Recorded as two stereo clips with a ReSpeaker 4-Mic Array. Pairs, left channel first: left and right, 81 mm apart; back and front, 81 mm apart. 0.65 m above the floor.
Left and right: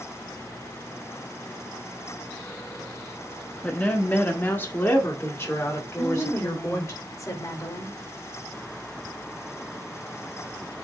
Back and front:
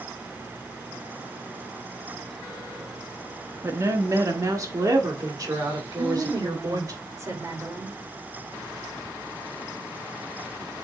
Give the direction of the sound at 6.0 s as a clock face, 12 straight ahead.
10 o'clock.